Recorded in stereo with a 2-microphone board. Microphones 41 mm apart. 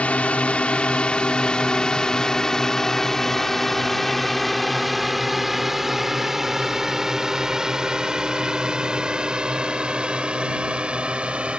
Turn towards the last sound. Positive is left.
turn(degrees=-30)  # may be behind; listen again after turning